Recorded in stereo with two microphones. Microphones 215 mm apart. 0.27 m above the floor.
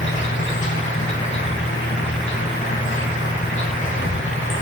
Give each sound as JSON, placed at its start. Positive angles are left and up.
{"t": 0.0, "sound": "an insect", "side_deg": 65, "distance_m": 5.5}